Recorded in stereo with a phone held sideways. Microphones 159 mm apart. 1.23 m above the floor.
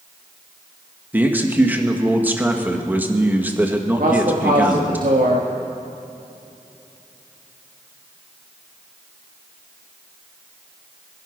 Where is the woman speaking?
70° right (ahead or behind), 1.6 m.